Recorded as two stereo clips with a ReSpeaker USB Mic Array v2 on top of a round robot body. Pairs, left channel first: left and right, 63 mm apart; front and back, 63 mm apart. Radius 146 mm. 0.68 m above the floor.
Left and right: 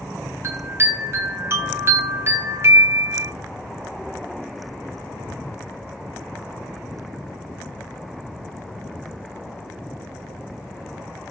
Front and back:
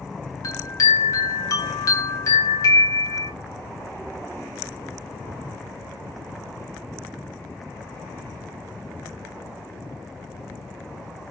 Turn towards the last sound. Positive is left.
turn(degrees=-40)